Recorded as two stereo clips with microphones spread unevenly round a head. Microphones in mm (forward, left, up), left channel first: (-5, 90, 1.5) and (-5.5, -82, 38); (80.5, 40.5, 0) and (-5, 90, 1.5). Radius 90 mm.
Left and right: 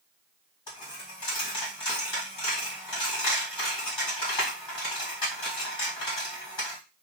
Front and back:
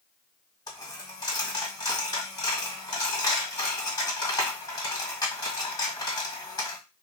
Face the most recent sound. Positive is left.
turn(degrees=20)